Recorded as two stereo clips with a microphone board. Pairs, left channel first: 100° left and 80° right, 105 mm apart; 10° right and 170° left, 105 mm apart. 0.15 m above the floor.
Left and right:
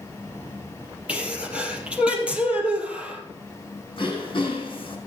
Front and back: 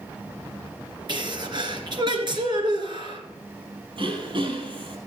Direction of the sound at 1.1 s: 155° right.